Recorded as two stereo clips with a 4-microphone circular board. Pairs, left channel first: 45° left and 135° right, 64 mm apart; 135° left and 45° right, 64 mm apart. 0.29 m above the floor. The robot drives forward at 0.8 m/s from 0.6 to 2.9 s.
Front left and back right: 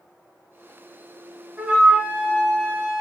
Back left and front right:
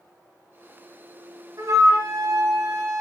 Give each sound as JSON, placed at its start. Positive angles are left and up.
{"t": 1.6, "sound": "a flute", "azimuth_deg": -65, "distance_m": 3.5}